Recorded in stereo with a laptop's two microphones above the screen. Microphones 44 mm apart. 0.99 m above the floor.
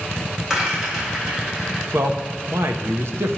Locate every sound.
0.5 s a rattle: 15° right (ahead or behind), 1.9 m
1.9 s a man speaking: 70° right (ahead or behind), 0.6 m